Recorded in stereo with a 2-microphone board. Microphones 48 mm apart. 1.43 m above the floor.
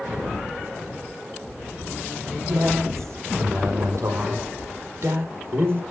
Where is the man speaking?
85° right, 5 m; by 5.8 s 55° right (ahead or behind), 5.5 m.